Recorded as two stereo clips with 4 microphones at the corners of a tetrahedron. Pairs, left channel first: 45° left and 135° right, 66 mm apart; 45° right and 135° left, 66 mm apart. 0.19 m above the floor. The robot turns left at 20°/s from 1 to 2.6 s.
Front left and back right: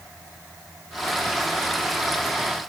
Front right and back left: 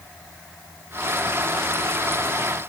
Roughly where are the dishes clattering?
No dishes clattering in this recording.